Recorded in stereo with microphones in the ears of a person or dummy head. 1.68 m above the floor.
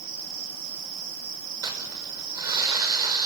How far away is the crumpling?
About 6 m.